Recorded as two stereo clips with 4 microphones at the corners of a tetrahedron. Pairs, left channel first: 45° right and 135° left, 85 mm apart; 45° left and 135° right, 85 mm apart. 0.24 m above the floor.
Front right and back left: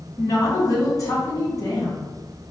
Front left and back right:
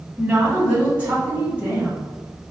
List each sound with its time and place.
0.2 s a woman speaking: 65° right, 2.0 m